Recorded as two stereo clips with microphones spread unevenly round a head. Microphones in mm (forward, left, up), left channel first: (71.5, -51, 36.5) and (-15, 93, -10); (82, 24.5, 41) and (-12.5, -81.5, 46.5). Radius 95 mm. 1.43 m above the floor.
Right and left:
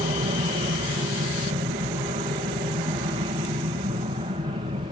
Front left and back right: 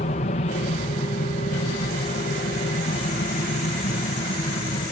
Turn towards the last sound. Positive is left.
turn(degrees=75)